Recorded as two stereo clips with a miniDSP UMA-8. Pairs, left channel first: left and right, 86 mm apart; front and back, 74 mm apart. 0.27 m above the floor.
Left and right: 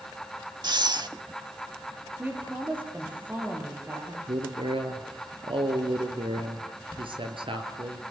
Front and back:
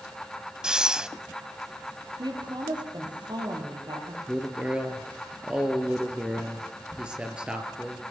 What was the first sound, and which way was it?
Breathing, 100° right.